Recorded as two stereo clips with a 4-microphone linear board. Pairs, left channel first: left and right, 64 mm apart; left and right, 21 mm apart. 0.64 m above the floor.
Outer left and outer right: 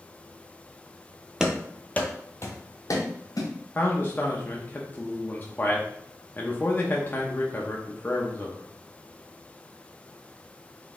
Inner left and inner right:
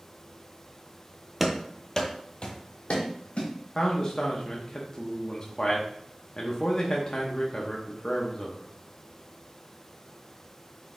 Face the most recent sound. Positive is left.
turn(degrees=30)  # may be behind; listen again after turning